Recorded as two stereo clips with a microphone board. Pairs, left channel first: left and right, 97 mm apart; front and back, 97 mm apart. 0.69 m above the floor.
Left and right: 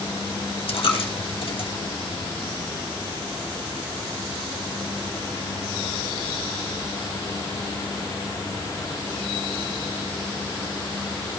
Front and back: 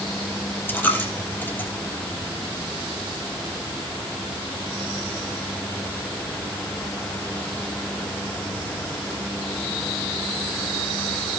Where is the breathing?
I don't hear breathing.